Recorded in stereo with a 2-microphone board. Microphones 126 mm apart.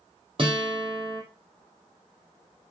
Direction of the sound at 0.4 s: 40° right (ahead or behind).